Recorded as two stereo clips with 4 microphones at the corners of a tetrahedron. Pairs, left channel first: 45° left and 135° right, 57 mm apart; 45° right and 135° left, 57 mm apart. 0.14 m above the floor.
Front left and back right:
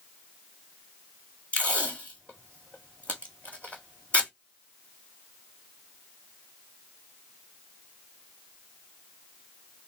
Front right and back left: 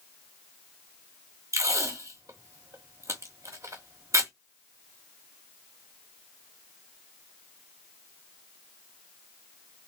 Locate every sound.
1.5 s tape being pulled: 110° left, 1.7 m